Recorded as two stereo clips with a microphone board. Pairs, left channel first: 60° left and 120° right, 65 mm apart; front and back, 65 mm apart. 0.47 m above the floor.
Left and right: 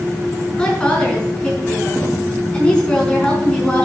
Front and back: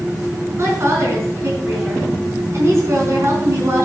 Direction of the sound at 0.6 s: 135° left.